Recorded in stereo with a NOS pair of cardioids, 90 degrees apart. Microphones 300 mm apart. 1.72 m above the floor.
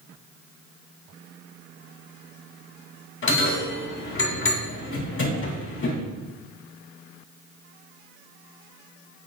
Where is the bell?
40° left, 3 m.